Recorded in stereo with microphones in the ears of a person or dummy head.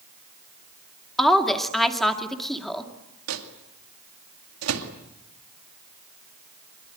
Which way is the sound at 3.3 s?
90° right.